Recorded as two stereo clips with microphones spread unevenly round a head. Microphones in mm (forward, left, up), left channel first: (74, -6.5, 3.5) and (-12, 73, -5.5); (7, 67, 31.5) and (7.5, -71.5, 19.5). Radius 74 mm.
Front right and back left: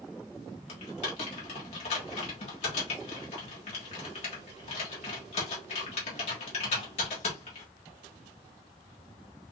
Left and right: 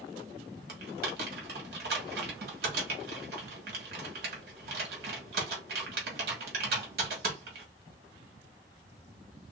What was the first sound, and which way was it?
Typing on a keyboard, 75° right.